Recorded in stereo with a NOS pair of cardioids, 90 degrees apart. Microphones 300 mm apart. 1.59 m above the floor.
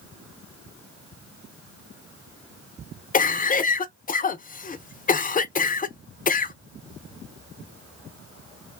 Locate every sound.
3.1 s a cough: 30° left, 0.7 m